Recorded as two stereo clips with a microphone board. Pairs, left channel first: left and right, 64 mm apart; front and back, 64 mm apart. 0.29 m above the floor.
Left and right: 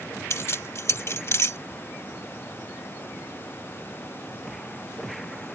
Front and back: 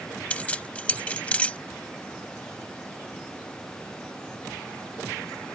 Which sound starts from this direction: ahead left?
Keys jangling, at 0.3 s.